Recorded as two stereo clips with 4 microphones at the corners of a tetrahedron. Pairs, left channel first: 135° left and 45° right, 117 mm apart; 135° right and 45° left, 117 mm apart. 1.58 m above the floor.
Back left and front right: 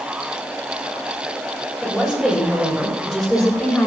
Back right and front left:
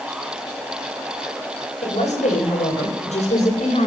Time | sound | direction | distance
1.8 | a woman speaking | 125° right | 8.5 m